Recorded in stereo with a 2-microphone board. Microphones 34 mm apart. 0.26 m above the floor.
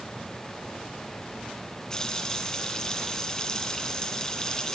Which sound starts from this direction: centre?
A running tap, at 1.9 s.